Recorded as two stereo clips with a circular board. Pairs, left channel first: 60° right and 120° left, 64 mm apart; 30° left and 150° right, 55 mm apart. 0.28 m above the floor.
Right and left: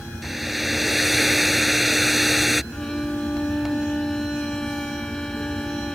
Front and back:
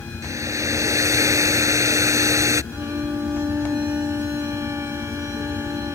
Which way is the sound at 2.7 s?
140° right.